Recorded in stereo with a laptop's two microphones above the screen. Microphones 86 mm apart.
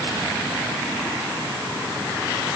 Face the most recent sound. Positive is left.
No sound to turn to.